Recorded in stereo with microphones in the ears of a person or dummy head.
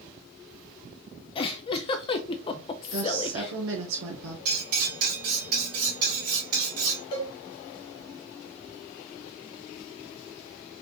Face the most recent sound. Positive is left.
turn(degrees=30)  # may be behind; listen again after turning